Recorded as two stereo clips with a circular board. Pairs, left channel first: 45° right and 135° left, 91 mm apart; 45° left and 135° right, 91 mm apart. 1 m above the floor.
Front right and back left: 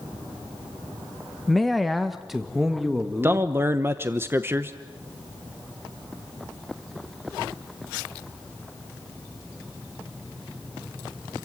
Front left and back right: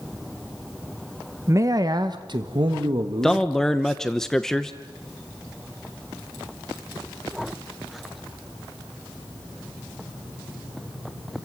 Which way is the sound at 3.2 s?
125° left.